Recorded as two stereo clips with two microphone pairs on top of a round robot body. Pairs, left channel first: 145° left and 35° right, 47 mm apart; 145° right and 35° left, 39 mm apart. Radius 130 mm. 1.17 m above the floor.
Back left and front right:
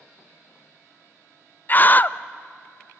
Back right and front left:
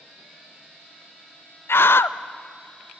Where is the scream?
165° right, 0.6 m.